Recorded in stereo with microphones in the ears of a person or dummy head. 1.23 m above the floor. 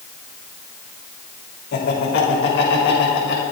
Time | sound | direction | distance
1.7 | laughter | 60° left (ahead or behind) | 3.5 m